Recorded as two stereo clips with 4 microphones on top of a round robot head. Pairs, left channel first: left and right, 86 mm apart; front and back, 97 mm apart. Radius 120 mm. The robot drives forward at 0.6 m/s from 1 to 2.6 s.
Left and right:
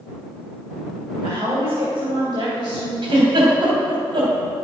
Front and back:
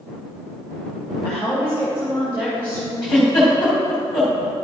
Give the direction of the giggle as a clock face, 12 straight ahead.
3 o'clock.